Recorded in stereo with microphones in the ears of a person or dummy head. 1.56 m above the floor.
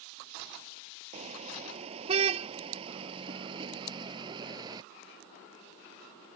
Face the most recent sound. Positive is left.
turn(degrees=-25)  # may be behind; listen again after turning